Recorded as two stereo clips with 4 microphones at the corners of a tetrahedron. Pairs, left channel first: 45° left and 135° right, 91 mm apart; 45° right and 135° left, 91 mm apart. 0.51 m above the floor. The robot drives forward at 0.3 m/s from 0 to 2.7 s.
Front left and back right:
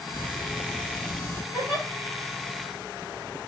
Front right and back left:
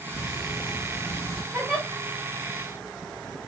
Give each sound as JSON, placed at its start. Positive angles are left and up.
{"t": 0.1, "sound": "ticking", "azimuth_deg": -10, "distance_m": 1.7}
{"t": 1.5, "sound": "a giggle", "azimuth_deg": -175, "distance_m": 1.9}